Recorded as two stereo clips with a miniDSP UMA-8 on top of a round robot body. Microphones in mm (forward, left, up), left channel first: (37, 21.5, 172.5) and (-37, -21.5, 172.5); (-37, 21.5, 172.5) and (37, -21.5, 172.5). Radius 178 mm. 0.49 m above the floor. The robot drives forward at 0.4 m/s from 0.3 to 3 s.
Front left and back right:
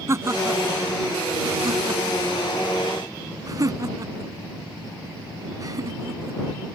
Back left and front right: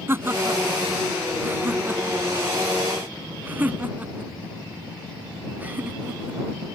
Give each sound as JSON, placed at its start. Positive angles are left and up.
{"t": 0.1, "sound": "laughter", "azimuth_deg": -95}